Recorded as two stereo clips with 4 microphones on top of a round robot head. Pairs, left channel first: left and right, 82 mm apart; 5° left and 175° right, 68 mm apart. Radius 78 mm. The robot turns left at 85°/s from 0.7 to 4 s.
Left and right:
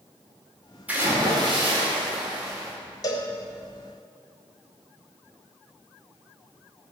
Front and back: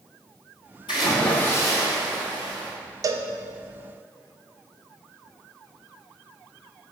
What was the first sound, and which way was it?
A splash, 20° right.